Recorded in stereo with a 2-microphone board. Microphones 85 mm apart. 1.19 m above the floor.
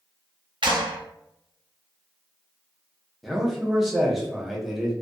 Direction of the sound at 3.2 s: Centre (ahead or behind).